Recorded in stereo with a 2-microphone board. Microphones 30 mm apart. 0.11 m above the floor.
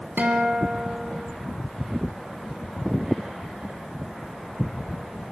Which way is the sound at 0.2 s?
65° right (ahead or behind).